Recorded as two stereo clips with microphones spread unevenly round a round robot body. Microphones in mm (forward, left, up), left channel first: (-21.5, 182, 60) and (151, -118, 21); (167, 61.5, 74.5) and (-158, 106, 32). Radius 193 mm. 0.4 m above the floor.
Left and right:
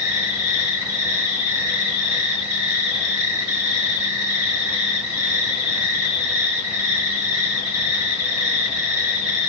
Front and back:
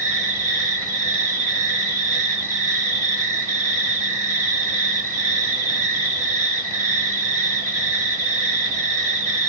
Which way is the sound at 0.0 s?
110° right.